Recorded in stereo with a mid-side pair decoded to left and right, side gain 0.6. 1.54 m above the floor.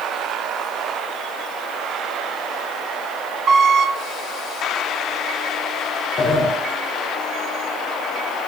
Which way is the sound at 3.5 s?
50° right.